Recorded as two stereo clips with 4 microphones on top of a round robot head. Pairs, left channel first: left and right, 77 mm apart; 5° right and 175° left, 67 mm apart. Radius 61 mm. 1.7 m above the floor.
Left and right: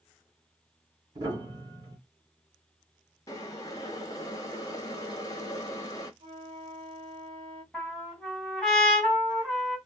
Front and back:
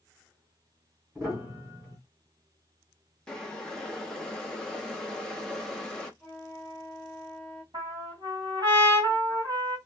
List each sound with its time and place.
1.1 s a piano: 110° right, 1.4 m
3.3 s boiling: 70° left, 0.6 m
6.2 s a flute: 80° right, 0.9 m
7.7 s a trumpet: 175° left, 2.0 m